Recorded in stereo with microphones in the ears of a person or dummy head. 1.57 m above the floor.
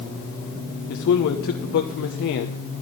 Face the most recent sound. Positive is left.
turn(degrees=60)  # may be behind; listen again after turning